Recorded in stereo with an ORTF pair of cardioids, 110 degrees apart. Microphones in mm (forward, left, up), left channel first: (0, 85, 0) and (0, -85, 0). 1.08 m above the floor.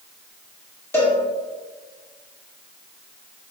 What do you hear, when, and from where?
0.9 s a cowbell: 15° left, 1.3 m